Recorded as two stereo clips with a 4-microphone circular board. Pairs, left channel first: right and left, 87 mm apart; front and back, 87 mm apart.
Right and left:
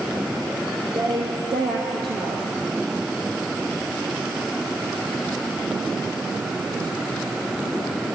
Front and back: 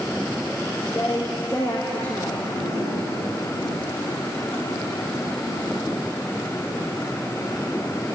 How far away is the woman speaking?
About 3.5 m.